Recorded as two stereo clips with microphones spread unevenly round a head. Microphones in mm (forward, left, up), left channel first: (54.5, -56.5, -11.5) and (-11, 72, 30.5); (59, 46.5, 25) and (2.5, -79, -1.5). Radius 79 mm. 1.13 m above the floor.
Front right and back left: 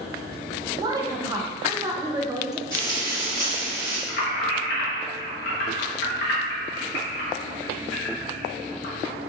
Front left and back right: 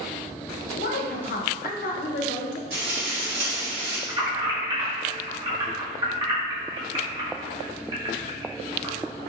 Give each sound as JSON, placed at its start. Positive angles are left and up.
{"t": 0.7, "sound": "a woman speaking", "azimuth_deg": 45, "distance_m": 0.5}
{"t": 2.7, "sound": "frying", "azimuth_deg": -135, "distance_m": 1.7}
{"t": 4.1, "sound": "keys jangling", "azimuth_deg": -60, "distance_m": 1.2}